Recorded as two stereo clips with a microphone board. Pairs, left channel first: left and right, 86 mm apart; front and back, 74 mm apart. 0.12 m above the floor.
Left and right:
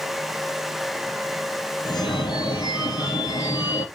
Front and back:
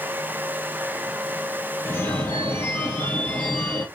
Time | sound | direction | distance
1.9 | a phone ringing | 60° left | 2.5 m